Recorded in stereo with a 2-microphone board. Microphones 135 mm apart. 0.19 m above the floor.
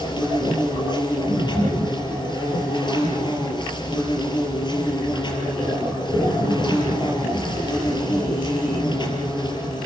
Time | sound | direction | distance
0.0 | an insect | 35° left (ahead or behind) | 5.5 m